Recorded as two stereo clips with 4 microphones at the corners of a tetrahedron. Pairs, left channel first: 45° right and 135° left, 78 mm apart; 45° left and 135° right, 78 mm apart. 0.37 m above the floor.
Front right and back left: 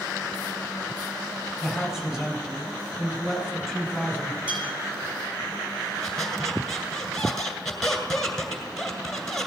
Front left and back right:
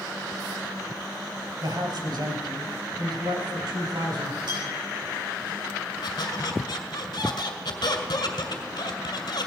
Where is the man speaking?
135° right, 2.5 m; by 4.4 s 140° right, 4 m.